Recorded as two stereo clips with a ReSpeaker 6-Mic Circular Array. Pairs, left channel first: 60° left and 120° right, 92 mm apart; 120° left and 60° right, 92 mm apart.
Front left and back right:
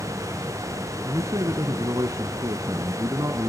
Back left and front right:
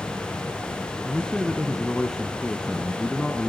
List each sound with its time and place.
1.0 s a man speaking: 155° right, 1.6 m